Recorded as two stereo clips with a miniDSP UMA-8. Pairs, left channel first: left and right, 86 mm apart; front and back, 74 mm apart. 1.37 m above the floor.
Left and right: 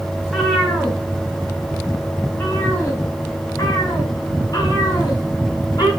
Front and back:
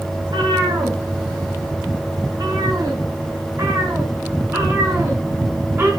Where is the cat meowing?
175° left, 3.5 m; by 5.9 s 125° left, 5 m.